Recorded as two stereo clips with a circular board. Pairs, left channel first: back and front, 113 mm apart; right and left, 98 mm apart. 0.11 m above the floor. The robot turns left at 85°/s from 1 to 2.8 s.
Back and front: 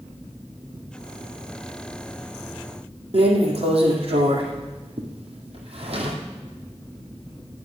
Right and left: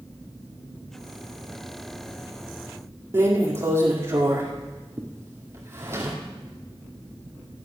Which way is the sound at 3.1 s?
30° left.